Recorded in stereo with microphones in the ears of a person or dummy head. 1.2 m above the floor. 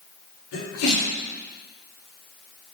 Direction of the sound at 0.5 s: 70° left (ahead or behind).